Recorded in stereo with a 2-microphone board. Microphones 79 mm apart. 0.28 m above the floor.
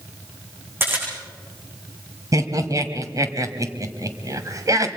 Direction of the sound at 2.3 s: 45° right (ahead or behind).